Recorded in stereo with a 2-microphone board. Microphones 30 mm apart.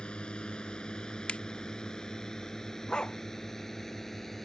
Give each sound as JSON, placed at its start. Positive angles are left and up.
{"t": 0.0, "sound": "a drone", "side_deg": 35}
{"t": 1.3, "sound": "a finger snap", "side_deg": 45}
{"t": 2.9, "sound": "a dog barking", "side_deg": 30}